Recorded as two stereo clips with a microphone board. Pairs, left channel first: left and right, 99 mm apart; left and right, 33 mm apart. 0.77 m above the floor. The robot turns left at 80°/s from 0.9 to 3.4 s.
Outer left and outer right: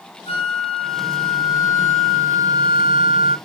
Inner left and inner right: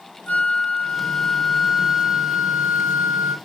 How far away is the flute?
About 4 m.